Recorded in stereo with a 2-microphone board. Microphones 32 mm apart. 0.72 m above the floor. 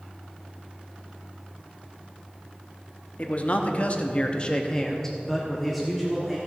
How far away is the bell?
No bell in this recording.